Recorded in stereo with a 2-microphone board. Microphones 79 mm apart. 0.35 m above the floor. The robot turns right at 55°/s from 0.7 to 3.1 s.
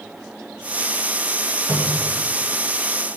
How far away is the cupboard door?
About 2 m.